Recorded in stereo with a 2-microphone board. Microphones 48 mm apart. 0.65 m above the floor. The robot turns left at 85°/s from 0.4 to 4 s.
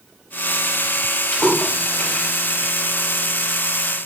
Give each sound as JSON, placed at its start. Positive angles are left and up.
{"t": 1.3, "sound": "a splash", "side_deg": 20, "distance_m": 1.3}